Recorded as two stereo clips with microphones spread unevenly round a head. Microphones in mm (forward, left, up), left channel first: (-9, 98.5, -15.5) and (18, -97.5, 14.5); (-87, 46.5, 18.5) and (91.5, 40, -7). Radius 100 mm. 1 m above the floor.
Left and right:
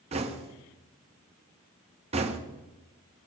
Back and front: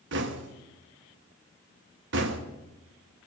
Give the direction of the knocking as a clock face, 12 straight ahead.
1 o'clock.